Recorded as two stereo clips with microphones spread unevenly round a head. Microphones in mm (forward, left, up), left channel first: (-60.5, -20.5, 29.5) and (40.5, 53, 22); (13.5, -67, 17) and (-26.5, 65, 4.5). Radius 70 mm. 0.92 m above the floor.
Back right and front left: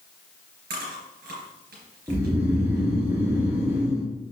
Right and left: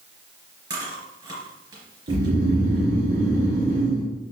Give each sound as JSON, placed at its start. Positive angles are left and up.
{"t": 0.7, "sound": "chewing", "azimuth_deg": 45, "distance_m": 3.5}
{"t": 2.1, "sound": "snoring", "azimuth_deg": 105, "distance_m": 2.5}